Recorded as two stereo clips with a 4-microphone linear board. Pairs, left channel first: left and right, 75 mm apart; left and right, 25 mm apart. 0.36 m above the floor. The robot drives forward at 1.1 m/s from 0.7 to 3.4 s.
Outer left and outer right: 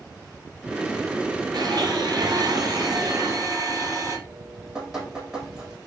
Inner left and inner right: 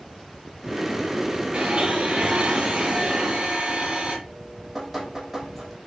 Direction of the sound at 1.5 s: 65° right (ahead or behind).